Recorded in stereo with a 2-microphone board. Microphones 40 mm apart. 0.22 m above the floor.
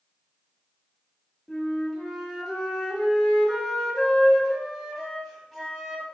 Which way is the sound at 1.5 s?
Centre (ahead or behind).